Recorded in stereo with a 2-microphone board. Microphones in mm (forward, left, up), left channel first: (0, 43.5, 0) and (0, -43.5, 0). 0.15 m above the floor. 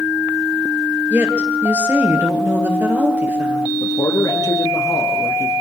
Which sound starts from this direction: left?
A man speaking, at 3.8 s.